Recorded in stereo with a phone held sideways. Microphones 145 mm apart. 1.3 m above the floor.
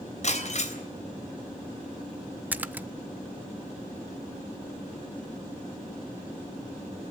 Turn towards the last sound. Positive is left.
turn(degrees=-10)  # may be behind; listen again after turning